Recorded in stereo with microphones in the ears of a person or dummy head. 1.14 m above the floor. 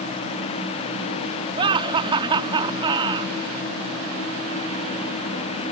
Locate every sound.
1.6 s laughter: 25° right (ahead or behind)